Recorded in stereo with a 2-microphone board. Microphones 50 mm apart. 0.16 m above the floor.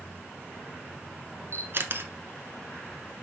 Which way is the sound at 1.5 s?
50° right (ahead or behind).